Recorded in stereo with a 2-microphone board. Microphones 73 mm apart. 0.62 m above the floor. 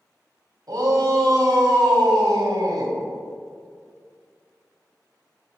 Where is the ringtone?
No ringtone in this recording.